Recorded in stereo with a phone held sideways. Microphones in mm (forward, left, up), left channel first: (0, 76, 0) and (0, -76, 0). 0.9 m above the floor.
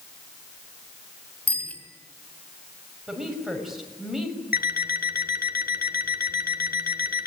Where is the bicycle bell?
10° left (ahead or behind), 7 m.